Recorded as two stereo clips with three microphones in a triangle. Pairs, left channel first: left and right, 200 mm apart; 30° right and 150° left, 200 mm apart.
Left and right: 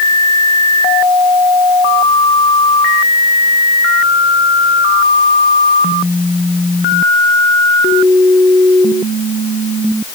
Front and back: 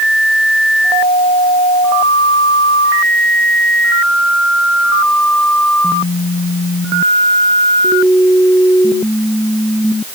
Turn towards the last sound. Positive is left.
No sound to turn to.